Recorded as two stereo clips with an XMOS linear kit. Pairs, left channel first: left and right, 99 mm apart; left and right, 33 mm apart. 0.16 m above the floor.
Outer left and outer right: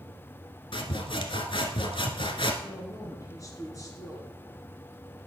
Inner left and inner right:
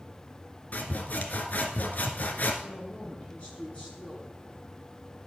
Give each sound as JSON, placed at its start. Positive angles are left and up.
{"t": 0.7, "sound": "sawing", "side_deg": 55, "distance_m": 1.1}
{"t": 2.6, "sound": "a woman speaking", "side_deg": 35, "distance_m": 2.5}